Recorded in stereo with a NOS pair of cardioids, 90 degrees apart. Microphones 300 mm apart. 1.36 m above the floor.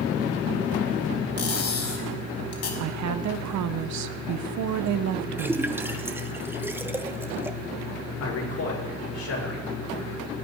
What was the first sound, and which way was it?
Cutlery clinking, 55° left.